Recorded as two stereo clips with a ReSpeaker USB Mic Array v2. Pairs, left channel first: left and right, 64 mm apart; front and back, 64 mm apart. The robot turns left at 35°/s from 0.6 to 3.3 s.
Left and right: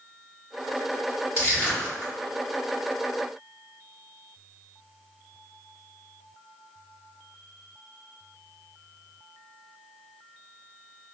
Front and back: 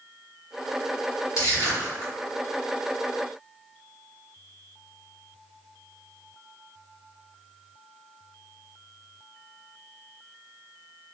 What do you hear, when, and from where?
1.4 s crushing: 30° left, 1.9 m; by 2.1 s 5° left, 1.9 m